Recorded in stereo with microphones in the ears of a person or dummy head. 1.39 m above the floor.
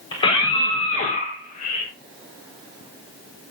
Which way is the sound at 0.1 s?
25° left (ahead or behind).